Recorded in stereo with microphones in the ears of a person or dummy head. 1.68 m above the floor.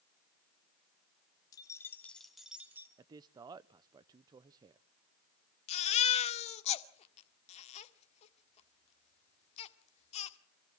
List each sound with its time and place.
1.5 s keys jangling: 15° left (ahead or behind), 2.5 m; by 2.9 s 20° right (ahead or behind), 3 m
3.0 s a man speaking: 30° right (ahead or behind), 0.6 m
5.7 s a baby crying: 35° left (ahead or behind), 1.6 m